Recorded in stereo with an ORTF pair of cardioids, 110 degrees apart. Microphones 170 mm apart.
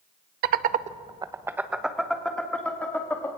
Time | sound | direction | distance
0.4 | laughter | 70° right | 0.9 m